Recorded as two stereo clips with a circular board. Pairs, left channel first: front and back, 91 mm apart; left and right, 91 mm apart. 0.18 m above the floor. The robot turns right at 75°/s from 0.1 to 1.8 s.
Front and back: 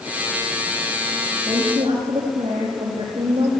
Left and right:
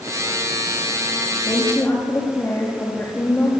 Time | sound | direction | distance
1.5 | a woman speaking | 135° left | 8 m